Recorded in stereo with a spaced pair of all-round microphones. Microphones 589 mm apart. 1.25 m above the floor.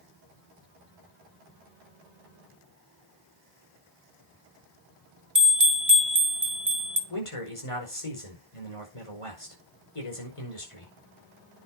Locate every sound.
5.3 s a bell: 30° right (ahead or behind), 1.3 m
7.1 s a man speaking: 60° left (ahead or behind), 5.5 m